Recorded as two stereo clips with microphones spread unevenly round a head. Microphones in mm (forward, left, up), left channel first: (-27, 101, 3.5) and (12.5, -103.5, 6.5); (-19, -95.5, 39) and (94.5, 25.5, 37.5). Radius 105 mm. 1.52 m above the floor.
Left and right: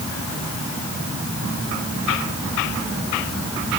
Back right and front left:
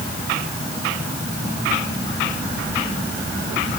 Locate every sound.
Only background noise.